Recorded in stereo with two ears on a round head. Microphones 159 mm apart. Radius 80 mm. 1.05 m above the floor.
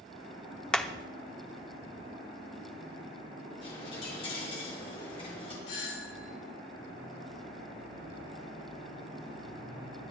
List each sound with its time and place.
0.7 s hammering: 5° left (ahead or behind), 0.6 m
3.6 s a dropped coin: 30° left (ahead or behind), 5 m
5.7 s a doorbell: 70° left (ahead or behind), 2 m